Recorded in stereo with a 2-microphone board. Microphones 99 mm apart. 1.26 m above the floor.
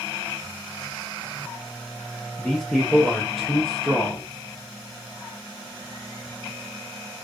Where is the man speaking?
5° left (ahead or behind), 0.6 m.